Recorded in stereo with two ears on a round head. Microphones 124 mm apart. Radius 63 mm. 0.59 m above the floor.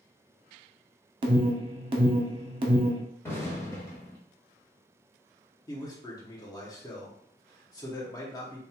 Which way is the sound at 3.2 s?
15° left (ahead or behind).